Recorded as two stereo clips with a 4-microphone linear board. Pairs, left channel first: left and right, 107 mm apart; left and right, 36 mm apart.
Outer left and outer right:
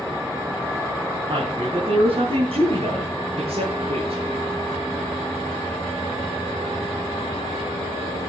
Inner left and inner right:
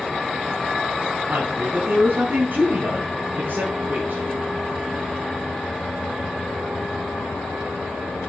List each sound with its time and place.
1.3 s a woman speaking: 50° right (ahead or behind), 4 m; by 4.2 s 65° right (ahead or behind), 8 m